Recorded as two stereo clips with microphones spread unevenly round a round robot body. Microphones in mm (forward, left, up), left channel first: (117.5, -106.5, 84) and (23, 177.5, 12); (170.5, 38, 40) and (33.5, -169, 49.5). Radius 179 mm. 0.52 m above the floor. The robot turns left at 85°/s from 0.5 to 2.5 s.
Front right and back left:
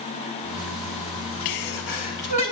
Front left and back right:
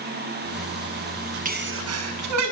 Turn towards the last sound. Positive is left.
turn(degrees=-155)